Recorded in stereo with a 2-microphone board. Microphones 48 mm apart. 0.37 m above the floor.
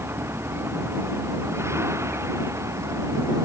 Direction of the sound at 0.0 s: 55° right (ahead or behind).